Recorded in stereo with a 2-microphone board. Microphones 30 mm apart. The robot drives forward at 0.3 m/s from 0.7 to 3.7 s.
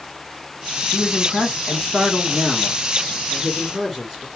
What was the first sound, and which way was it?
A man speaking, 20° right (ahead or behind).